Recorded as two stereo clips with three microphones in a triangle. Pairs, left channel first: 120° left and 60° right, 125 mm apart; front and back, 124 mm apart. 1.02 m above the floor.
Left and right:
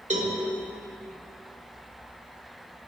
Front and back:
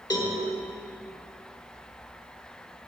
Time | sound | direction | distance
0.1 | a cowbell | 55° right | 1.3 m